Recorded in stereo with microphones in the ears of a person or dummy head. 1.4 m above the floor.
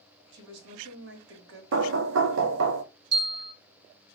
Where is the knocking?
80° right, 0.8 m.